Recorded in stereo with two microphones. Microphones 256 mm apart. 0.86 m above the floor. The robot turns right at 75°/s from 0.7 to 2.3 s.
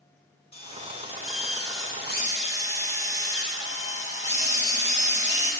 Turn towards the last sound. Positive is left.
turn(degrees=145)